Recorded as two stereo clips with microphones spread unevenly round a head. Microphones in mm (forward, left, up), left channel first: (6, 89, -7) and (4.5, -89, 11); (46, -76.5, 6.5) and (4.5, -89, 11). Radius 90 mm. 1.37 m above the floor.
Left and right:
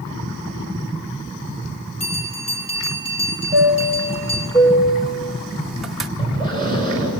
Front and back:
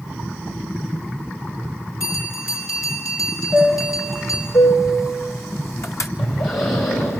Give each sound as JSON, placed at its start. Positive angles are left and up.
{"t": 2.0, "sound": "a bell", "azimuth_deg": 30, "distance_m": 6.0}
{"t": 3.5, "sound": "a chime", "azimuth_deg": -5, "distance_m": 2.0}
{"t": 6.2, "sound": "breathing", "azimuth_deg": 20, "distance_m": 8.0}